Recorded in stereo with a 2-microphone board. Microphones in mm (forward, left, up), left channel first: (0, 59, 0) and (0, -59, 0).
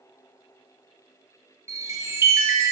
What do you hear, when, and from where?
1.7 s a chime: 25° right (ahead or behind), 0.9 m